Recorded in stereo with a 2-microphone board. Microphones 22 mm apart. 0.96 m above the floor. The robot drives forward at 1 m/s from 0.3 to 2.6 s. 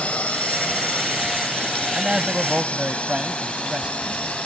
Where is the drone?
75° left (ahead or behind); by 4.5 s 65° left (ahead or behind).